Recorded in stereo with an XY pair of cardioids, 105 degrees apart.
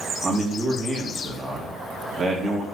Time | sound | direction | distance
0.2 | a man speaking | 35° right | 2.5 m